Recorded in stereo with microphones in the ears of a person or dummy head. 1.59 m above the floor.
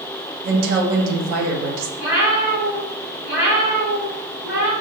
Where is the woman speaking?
75° right (ahead or behind), 1.0 m.